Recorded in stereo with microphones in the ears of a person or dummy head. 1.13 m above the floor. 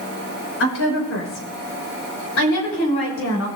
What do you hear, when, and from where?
0.6 s a woman speaking: 70° left (ahead or behind), 5 m; by 3.5 s 85° left, 6 m